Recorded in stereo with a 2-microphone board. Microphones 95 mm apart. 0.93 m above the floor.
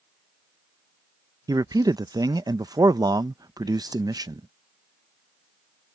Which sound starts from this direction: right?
A man speaking, at 1.5 s.